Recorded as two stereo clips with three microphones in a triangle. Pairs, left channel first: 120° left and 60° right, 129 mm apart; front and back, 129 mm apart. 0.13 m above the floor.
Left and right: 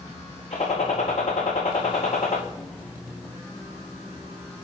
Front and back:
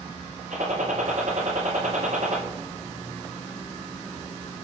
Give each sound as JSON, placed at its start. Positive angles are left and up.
{"t": 0.5, "sound": "a gunshot", "azimuth_deg": 155, "distance_m": 4.5}